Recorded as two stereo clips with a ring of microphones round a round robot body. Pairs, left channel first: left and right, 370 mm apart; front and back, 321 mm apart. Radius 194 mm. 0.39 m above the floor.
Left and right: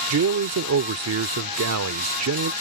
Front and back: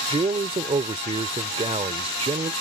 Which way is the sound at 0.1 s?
115° right.